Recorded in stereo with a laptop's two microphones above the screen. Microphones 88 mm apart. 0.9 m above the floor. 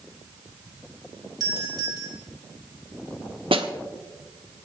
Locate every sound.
1.4 s a doorbell: 50° right (ahead or behind), 4.5 m
3.5 s a snare drum: 90° right, 1.2 m